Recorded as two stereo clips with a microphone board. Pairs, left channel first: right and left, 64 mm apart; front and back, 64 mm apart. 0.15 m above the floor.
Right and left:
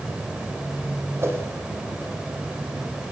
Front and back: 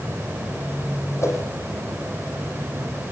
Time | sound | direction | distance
1.2 | a whoosh | 40° left | 5.5 m